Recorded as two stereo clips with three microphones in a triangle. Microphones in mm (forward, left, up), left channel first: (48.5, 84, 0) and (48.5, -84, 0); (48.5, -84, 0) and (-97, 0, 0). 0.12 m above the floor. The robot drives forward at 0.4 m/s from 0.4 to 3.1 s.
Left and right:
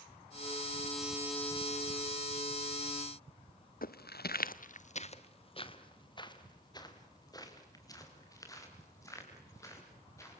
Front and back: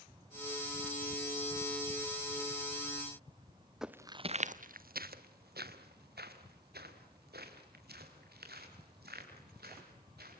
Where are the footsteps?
65° left, 0.9 m; by 10.4 s 160° left, 8.5 m.